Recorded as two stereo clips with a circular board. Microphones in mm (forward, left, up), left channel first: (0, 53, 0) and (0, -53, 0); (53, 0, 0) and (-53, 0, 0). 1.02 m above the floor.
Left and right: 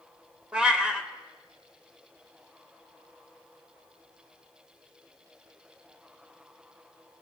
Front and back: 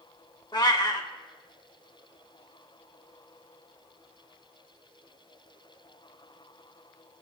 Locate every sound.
0.5 s a cat meowing: 10° right, 0.9 m